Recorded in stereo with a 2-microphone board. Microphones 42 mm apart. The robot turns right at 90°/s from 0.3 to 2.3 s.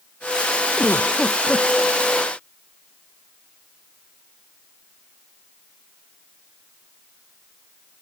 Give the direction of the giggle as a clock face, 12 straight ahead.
8 o'clock.